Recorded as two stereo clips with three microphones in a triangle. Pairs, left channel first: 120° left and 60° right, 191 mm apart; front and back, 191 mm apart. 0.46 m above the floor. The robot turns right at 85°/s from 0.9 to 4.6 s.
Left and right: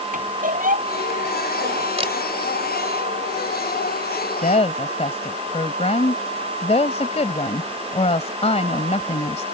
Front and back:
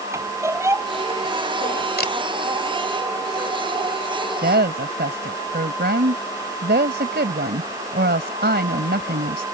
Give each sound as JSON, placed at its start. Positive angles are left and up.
{"t": 0.1, "sound": "a squeak", "azimuth_deg": -105}
{"t": 2.0, "sound": "a camera shutter", "azimuth_deg": -10}
{"t": 4.4, "sound": "a woman speaking", "azimuth_deg": 155}